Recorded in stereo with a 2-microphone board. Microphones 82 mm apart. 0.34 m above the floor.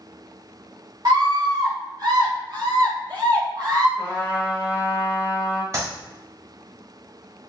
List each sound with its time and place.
1.1 s a scream: 55° right (ahead or behind), 1.6 m; by 3.9 s 50° right (ahead or behind), 2.5 m
4.0 s a trumpet: 20° left (ahead or behind), 1.5 m
5.7 s a clap: 35° right (ahead or behind), 1.6 m